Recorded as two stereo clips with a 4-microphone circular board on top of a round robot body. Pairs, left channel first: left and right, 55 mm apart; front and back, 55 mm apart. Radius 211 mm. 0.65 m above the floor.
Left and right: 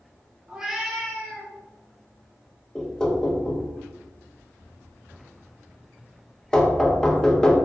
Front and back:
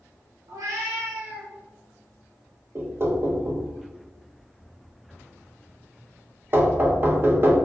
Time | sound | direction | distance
0.5 | a cat meowing | 165° right | 0.7 m
2.8 | knocking | 160° left | 0.9 m